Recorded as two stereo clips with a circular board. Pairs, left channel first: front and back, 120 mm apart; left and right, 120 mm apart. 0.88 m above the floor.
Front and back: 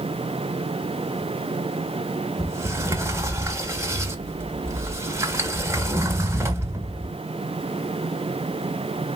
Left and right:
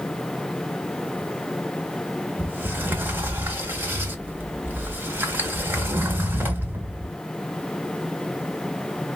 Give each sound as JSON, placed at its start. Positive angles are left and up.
{"t": 2.4, "sound": "a sliding door", "azimuth_deg": -145, "distance_m": 0.7}